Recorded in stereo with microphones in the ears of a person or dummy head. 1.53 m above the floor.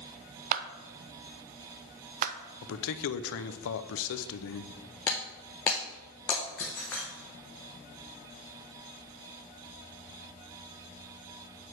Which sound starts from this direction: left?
A man speaking, at 2.6 s.